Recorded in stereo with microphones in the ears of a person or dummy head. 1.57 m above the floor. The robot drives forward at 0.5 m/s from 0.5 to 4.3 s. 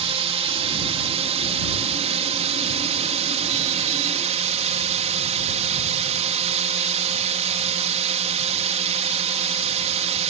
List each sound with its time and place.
0.0 s a drone: 35° right (ahead or behind)